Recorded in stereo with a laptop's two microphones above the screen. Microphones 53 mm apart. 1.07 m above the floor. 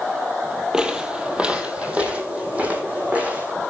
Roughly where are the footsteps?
Centre.